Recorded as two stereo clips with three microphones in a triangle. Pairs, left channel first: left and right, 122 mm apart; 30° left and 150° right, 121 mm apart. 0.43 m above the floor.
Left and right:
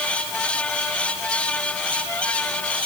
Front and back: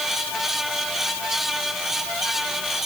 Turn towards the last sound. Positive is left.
No sound to turn to.